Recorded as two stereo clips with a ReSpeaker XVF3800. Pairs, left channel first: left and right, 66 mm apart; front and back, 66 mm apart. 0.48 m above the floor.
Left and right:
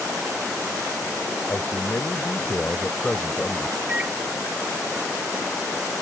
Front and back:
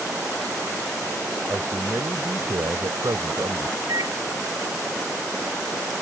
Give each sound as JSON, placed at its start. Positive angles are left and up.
{"t": 1.5, "sound": "a man speaking", "azimuth_deg": 135}
{"t": 3.9, "sound": "a microwave", "azimuth_deg": -160}